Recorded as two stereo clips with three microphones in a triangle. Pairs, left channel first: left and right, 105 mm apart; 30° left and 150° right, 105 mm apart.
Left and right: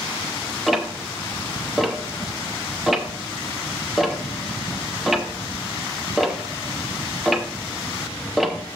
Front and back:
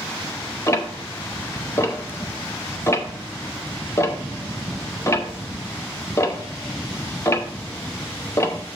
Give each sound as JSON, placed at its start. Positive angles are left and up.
{"t": 0.7, "sound": "ticking", "azimuth_deg": -5, "distance_m": 0.7}